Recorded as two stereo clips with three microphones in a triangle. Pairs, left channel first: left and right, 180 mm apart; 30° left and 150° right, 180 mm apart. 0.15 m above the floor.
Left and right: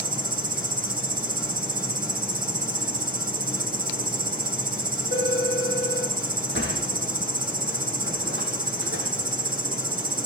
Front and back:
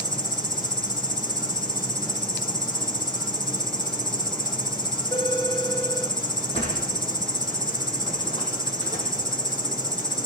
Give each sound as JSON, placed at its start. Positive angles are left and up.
{"t": 0.0, "sound": "an insect", "azimuth_deg": -55, "distance_m": 1.9}
{"t": 5.1, "sound": "a phone ringing", "azimuth_deg": 100, "distance_m": 5.0}
{"t": 6.5, "sound": "a sliding door", "azimuth_deg": 85, "distance_m": 6.5}